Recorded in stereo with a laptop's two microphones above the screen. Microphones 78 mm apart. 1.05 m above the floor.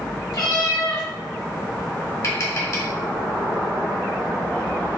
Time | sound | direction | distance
0.3 | a cat meowing | 60° left (ahead or behind) | 2.0 m
2.2 | tapping | 45° left (ahead or behind) | 2.0 m